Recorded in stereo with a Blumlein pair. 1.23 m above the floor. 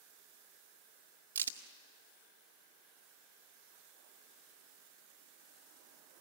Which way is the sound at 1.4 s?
70° right.